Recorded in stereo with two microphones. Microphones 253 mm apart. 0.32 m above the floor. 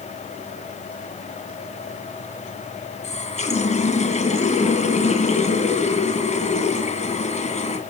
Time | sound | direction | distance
3.0 | a running tap | 25° left (ahead or behind) | 2.0 m